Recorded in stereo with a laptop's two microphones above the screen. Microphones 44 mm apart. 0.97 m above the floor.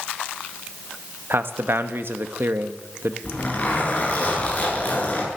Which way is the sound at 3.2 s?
35° left (ahead or behind).